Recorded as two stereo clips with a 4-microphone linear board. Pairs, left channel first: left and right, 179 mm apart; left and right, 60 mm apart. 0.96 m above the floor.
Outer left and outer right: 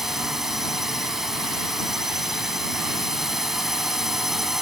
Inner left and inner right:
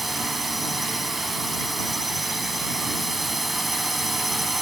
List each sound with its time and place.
0.0 s a drone: centre (ahead or behind)